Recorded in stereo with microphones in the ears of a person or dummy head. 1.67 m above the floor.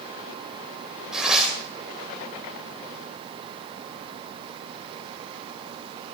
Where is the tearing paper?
10° right (ahead or behind), 2.5 m.